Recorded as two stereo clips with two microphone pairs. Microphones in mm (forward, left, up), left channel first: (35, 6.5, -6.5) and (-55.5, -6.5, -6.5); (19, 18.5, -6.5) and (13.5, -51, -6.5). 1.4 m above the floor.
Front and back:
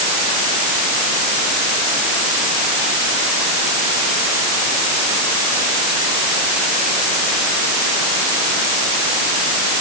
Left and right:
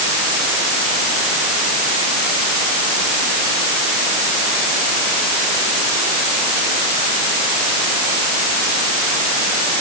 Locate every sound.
Only background noise.